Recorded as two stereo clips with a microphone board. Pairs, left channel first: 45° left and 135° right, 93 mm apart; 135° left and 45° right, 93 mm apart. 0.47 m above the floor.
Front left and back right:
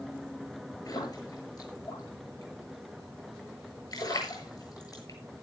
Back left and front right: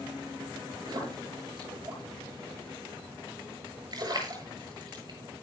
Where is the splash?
Straight ahead, 8 m.